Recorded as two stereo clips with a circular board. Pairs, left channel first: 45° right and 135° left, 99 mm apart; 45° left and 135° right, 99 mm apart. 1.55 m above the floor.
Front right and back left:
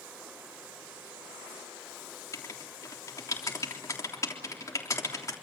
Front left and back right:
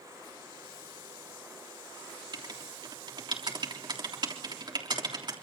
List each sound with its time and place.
2.3 s writing: 100° right, 3.5 m